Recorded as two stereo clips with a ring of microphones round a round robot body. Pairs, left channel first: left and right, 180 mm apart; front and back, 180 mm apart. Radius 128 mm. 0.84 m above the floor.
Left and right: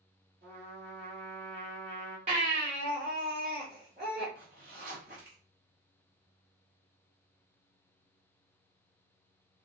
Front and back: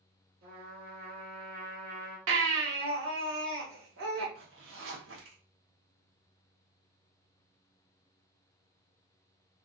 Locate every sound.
0.4 s a trumpet: 150° right, 2.5 m
2.3 s a baby crying: 155° right, 1.4 m
4.3 s a zipper: 150° right, 1.1 m